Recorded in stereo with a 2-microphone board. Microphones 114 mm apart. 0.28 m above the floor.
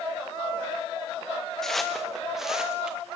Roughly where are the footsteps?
Centre.